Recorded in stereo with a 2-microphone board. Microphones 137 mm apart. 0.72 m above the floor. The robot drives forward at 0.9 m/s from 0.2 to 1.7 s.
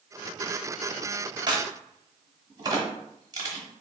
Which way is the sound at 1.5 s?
35° right (ahead or behind).